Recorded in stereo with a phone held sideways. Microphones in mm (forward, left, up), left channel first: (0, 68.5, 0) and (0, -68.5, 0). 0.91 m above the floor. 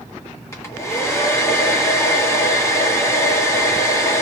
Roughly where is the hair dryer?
Left.